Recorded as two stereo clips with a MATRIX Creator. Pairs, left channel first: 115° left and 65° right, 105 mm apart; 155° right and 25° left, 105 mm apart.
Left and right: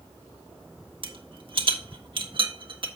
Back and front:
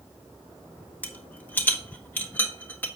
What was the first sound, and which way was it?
A rattle, 90° right.